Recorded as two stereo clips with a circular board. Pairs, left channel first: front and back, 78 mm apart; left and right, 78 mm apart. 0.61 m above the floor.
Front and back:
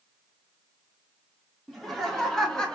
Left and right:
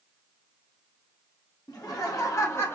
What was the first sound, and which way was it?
Laughter, 90° left.